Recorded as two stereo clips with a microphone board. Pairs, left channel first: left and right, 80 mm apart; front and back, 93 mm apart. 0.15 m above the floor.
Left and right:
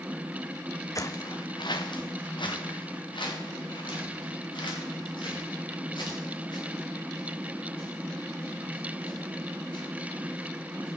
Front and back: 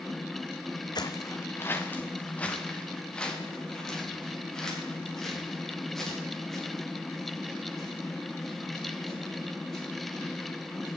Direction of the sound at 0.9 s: 40° left.